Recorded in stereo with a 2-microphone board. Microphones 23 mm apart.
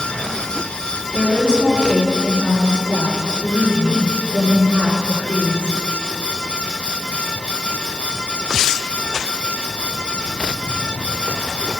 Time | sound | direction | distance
1.1 | a woman speaking | 60° left (ahead or behind) | 5 m